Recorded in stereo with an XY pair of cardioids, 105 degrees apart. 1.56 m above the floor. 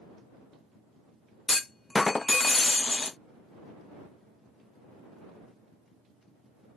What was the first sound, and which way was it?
A clunk, 20° left.